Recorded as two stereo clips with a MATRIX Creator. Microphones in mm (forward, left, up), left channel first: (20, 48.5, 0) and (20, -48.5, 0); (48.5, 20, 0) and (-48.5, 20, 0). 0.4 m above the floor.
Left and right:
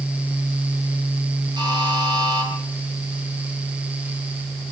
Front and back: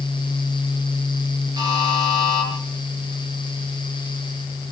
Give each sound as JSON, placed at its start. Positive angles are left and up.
{"t": 1.6, "sound": "a buzzer", "azimuth_deg": -130, "distance_m": 8.0}